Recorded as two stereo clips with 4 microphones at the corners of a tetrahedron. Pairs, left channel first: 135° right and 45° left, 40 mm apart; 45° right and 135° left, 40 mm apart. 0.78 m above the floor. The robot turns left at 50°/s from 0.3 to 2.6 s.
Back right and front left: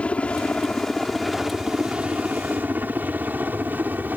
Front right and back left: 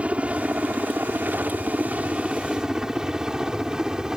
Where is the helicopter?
Straight behind; by 4.2 s 65° left.